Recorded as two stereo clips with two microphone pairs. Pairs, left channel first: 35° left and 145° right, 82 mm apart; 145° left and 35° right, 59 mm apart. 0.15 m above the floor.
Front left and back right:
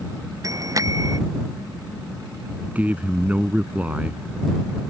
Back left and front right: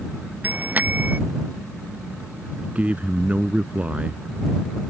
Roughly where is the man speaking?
Right.